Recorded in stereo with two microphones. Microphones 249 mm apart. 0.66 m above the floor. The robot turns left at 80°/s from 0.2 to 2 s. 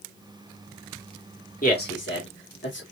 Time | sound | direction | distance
1.6 | a man speaking | 30° left (ahead or behind) | 1.4 m